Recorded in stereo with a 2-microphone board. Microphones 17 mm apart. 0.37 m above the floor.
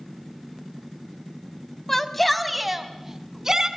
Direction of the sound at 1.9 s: 15° left (ahead or behind).